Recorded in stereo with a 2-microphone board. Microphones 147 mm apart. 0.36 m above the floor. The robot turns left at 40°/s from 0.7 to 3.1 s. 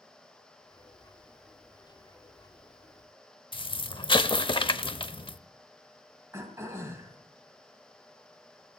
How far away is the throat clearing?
About 2.5 m.